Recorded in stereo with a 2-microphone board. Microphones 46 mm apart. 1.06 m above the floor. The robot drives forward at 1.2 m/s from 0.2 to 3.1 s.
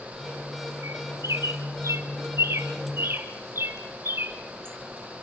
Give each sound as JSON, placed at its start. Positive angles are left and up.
{"t": 0.8, "sound": "a bird", "side_deg": -70, "distance_m": 2.5}